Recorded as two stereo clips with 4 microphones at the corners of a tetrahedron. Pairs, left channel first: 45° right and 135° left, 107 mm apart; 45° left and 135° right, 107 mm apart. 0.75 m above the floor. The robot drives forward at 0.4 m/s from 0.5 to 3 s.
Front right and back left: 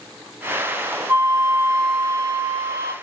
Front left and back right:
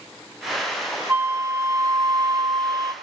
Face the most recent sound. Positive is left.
turn(degrees=180)